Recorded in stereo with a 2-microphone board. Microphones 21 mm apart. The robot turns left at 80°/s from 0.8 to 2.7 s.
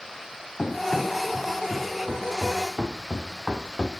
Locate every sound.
0.6 s running footsteps: 40° left (ahead or behind), 4 m; by 3.9 s 65° right (ahead or behind), 2 m